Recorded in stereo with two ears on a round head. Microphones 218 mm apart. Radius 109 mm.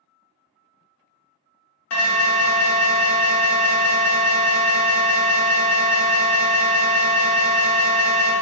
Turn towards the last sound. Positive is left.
turn(degrees=60)  # may be behind; listen again after turning